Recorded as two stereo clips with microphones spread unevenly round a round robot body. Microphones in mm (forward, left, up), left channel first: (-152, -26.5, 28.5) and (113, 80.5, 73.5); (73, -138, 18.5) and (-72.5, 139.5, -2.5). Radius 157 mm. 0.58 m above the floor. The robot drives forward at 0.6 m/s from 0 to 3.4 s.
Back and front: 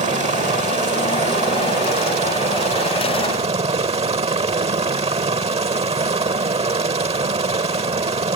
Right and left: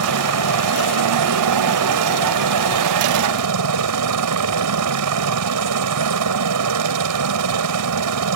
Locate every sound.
0.0 s a helicopter: 90° left